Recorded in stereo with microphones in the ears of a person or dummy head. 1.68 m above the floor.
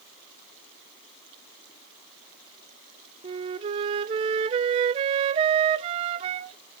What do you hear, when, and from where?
3.2 s a flute: 30° right (ahead or behind), 0.8 m